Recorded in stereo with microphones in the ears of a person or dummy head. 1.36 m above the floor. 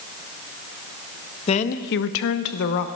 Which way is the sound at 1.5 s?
30° left (ahead or behind).